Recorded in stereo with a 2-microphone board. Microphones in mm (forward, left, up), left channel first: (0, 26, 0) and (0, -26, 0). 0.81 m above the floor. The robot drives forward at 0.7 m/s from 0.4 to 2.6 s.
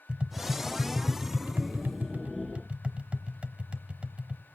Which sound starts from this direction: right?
Tapping, at 0.1 s.